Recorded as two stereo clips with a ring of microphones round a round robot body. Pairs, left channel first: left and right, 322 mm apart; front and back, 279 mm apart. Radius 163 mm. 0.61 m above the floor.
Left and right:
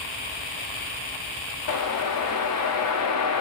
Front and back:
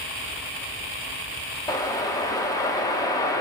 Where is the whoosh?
75° left, 1.0 m.